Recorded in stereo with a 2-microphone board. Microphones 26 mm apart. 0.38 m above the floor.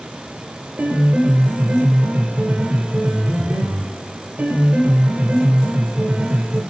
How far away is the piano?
About 2 m.